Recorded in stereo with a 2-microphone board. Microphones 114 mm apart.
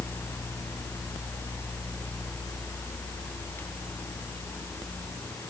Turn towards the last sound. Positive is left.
No sound to turn to.